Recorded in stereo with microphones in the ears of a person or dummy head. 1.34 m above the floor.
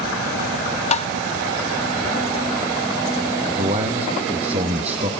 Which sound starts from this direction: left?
Tapping, at 0.9 s.